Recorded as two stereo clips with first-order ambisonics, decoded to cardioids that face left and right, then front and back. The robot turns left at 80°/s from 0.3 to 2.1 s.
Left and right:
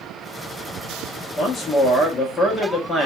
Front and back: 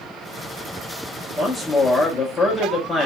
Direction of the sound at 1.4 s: 120° left.